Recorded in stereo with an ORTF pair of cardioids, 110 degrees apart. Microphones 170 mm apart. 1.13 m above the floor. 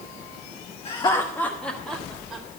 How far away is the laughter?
About 1.1 m.